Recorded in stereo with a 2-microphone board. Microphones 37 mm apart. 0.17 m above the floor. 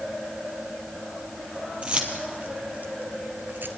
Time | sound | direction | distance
1.8 | keys jangling | 30° right (ahead or behind) | 3 m